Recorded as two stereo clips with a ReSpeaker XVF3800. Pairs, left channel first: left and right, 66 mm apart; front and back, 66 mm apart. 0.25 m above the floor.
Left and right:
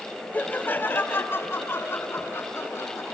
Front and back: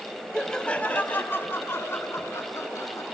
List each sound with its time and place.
0.3 s laughter: 75° left, 1.0 m; by 3.0 s 40° left, 2.5 m